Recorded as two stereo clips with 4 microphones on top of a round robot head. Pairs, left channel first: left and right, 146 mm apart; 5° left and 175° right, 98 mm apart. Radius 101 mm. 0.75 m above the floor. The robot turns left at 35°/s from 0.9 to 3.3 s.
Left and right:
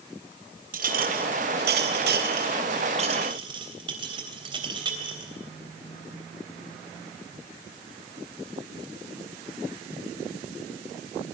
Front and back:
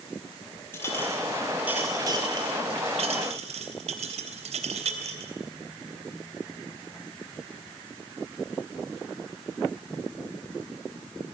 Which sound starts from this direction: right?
A clink, at 0.7 s.